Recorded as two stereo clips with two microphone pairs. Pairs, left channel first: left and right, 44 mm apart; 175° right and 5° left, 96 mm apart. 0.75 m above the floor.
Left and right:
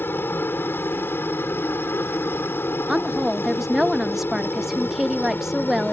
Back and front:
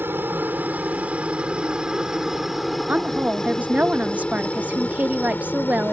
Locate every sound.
0.0 s a helicopter: 70° left; by 5.9 s 120° left
2.9 s a woman speaking: 20° right